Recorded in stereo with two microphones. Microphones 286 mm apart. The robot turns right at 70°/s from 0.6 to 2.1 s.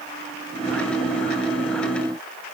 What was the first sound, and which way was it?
Only background noise.